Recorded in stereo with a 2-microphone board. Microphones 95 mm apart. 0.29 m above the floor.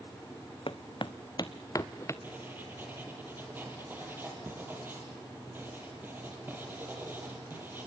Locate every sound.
0.7 s footsteps: 65° left (ahead or behind), 0.8 m; by 2.1 s 30° left (ahead or behind), 1.3 m
2.2 s writing: 20° right (ahead or behind), 4 m